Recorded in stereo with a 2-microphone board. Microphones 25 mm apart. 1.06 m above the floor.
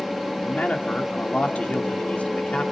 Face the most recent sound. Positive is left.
turn(degrees=65)  # may be behind; listen again after turning